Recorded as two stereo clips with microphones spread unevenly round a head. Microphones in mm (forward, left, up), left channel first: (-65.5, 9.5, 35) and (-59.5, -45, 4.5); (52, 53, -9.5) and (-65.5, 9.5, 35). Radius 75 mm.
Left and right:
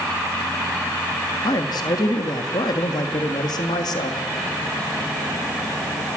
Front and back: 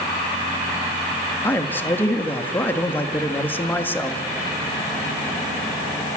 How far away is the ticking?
No ticking in this recording.